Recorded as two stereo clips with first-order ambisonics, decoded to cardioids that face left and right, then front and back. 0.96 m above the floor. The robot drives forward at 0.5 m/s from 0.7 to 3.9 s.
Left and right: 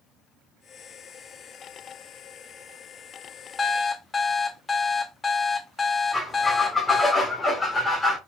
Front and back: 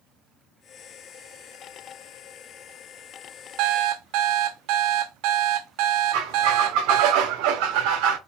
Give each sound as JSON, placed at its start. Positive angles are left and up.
{"t": 3.6, "sound": "an alarm clock", "azimuth_deg": 160, "distance_m": 0.6}
{"t": 6.1, "sound": "a squeak", "azimuth_deg": 170, "distance_m": 1.8}